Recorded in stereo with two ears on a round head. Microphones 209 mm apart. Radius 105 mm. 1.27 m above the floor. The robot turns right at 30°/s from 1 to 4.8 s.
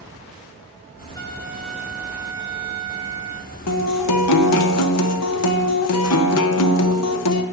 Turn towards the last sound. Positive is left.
turn(degrees=105)